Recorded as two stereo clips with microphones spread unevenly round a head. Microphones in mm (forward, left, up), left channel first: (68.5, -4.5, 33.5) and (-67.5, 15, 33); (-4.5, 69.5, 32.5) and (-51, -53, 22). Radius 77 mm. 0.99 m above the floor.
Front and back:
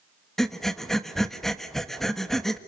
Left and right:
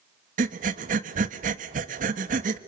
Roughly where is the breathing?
Right.